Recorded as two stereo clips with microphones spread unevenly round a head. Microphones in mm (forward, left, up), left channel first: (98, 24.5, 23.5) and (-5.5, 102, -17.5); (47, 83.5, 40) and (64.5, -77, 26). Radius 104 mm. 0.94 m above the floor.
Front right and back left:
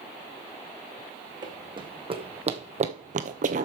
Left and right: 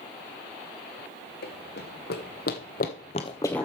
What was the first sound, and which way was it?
Running footsteps, 85° left.